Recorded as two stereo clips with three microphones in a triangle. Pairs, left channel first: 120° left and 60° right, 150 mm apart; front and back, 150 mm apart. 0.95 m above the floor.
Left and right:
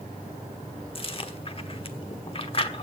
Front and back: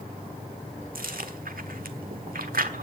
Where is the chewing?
170° left, 1.2 m.